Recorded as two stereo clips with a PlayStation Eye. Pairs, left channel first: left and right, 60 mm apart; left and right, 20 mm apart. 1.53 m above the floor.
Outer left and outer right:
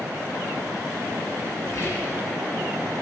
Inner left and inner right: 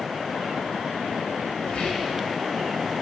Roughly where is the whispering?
Left.